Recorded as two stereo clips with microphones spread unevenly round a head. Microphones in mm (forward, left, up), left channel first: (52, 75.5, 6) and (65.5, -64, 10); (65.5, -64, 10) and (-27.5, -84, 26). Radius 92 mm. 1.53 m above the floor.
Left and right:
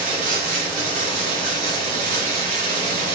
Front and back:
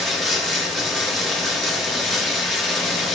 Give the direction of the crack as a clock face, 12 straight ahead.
I don't hear a crack.